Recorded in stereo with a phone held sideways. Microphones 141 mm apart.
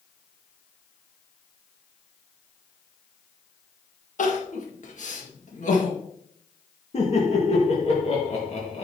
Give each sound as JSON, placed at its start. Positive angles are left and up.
{"t": 4.2, "sound": "crying", "side_deg": 60, "distance_m": 1.8}
{"t": 6.9, "sound": "laughter", "side_deg": 50, "distance_m": 1.7}